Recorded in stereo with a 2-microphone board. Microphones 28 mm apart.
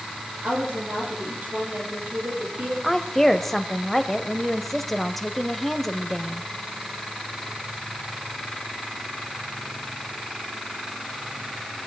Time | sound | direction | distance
0.4 | a woman speaking | 75° right (ahead or behind) | 9 m
2.8 | a woman speaking | 5° left (ahead or behind) | 1.1 m